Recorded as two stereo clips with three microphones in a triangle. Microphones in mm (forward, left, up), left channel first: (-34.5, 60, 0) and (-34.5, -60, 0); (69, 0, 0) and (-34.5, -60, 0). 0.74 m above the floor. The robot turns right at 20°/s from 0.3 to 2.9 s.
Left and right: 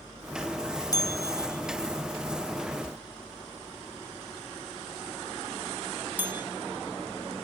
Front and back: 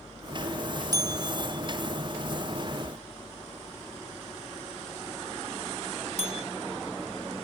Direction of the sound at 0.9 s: 155° left.